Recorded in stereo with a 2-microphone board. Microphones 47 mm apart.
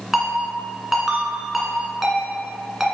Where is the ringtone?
5° right (ahead or behind), 1.9 m.